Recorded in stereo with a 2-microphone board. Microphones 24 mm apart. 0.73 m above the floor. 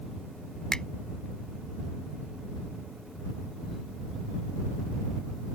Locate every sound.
0.7 s a finger snap: 30° left (ahead or behind)